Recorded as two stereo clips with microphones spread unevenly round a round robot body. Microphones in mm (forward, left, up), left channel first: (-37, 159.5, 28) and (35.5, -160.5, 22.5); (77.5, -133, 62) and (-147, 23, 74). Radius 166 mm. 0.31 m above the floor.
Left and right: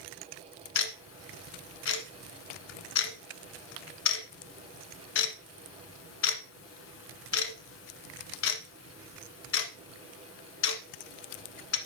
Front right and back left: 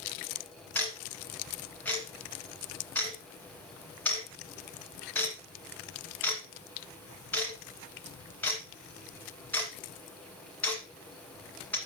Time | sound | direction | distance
0.8 | ticking | 50° left | 1.4 m